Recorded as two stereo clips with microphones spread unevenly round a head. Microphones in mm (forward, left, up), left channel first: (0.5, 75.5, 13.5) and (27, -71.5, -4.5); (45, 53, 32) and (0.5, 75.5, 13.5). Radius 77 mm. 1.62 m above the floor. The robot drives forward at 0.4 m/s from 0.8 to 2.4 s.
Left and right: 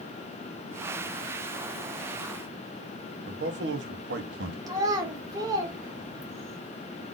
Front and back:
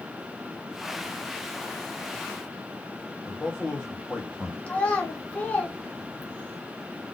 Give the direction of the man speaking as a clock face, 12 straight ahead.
3 o'clock.